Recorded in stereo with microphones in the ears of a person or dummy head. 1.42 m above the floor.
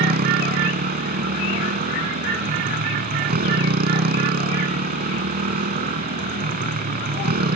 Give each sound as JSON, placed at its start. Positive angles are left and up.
{"t": 0.0, "sound": "a motorcycle", "side_deg": -45}